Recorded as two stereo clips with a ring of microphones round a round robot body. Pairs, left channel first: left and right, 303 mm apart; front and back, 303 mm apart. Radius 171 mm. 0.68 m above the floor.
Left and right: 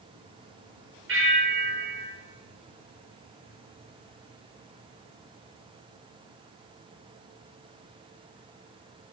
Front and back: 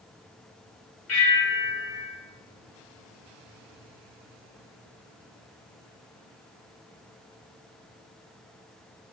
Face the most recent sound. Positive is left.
turn(degrees=-40)